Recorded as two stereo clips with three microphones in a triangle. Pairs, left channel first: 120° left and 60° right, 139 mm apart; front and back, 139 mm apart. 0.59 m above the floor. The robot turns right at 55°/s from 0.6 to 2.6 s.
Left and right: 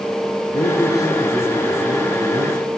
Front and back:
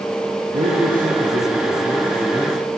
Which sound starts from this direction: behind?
A man speaking, at 0.5 s.